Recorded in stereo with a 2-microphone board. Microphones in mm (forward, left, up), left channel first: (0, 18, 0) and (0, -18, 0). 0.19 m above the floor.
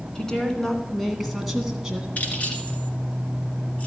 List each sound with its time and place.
0.1 s a woman speaking: 20° left (ahead or behind), 2.0 m; by 2.1 s 15° right (ahead or behind), 1.6 m
2.2 s keys jangling: 45° left (ahead or behind), 1.9 m